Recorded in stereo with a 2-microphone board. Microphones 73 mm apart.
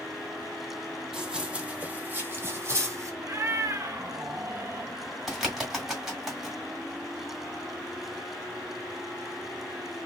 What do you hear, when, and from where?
1.1 s running footsteps: 5° right (ahead or behind), 1.3 m; by 3.1 s 45° right (ahead or behind), 1.7 m
3.2 s a cat meowing: 40° right (ahead or behind), 0.6 m
5.3 s a bird: 5° right (ahead or behind), 1.7 m